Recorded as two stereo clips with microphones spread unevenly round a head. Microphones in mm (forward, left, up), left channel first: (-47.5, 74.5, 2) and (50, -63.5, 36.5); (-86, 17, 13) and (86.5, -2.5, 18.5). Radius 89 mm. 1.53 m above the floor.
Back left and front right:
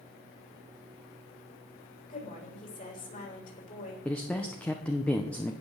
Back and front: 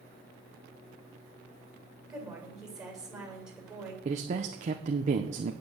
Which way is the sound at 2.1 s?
80° left.